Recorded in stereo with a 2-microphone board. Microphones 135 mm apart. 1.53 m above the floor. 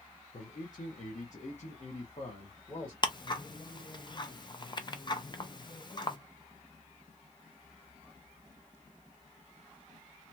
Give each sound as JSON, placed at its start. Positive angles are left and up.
{"t": 0.3, "sound": "a man speaking", "side_deg": 60, "distance_m": 0.9}
{"t": 3.0, "sound": "ticking", "side_deg": 35, "distance_m": 0.5}